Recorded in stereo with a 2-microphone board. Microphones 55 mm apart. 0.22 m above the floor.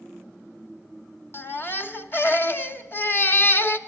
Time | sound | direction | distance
1.3 | a baby crying | 40° left (ahead or behind) | 0.8 m